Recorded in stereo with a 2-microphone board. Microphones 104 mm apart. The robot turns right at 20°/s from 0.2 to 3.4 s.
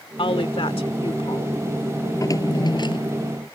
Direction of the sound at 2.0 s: 30° left (ahead or behind).